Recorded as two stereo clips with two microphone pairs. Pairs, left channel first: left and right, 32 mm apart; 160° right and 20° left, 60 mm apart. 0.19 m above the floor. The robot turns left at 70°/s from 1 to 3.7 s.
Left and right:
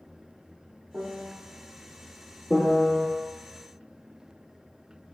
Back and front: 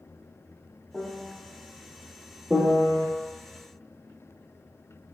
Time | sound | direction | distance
0.9 | a piano | 85° right | 0.5 m
2.5 | a piano | 75° left | 0.8 m